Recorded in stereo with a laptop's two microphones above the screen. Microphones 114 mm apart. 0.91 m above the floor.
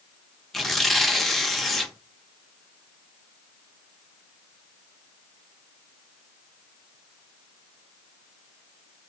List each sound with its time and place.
0.5 s tearing paper: centre (ahead or behind), 0.6 m